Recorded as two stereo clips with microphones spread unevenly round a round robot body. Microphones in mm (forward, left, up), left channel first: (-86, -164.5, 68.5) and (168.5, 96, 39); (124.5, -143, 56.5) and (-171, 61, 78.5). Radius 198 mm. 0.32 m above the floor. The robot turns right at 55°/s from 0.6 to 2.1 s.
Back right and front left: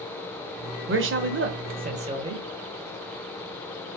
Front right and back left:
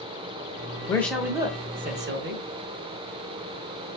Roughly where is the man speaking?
Ahead left.